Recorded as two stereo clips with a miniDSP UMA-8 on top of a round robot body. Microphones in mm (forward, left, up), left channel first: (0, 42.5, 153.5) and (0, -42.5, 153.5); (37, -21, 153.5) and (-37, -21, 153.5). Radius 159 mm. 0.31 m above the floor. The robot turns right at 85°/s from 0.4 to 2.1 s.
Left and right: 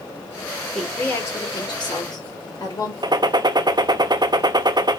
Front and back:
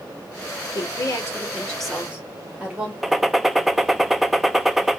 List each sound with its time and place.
0.8 s a woman speaking: straight ahead, 2 m; by 2.9 s 115° left, 2 m
3.0 s a gunshot: 90° right, 0.6 m